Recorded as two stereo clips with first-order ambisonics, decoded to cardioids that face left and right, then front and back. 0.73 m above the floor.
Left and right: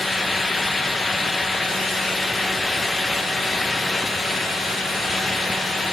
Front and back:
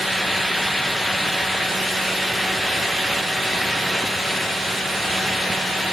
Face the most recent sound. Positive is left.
No sound to turn to.